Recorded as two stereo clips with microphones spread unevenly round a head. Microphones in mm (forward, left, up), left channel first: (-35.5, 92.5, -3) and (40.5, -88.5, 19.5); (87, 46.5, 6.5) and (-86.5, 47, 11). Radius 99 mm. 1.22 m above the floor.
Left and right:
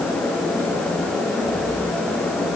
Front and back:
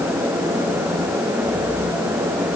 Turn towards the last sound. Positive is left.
No sound to turn to.